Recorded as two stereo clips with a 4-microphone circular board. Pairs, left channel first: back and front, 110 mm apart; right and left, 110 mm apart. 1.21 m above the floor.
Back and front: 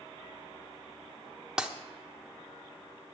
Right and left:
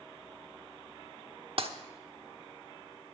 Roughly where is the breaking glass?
Left.